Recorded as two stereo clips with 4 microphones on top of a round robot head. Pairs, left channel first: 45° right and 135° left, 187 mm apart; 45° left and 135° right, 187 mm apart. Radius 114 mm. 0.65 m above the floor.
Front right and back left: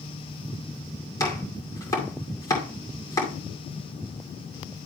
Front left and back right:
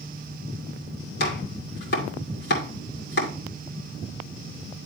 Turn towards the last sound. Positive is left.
turn(degrees=25)